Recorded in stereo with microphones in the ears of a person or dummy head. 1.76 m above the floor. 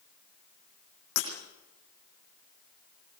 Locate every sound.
1.2 s breaking glass: 55° left (ahead or behind), 7.5 m